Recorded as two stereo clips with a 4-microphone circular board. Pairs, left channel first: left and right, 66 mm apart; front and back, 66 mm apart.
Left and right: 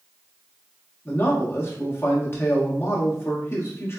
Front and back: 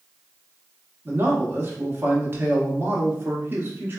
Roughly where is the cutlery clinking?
I don't hear cutlery clinking.